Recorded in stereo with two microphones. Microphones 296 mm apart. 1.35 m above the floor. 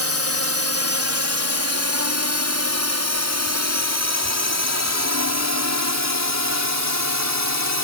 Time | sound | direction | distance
0.0 | a drone | 50° right (ahead or behind) | ?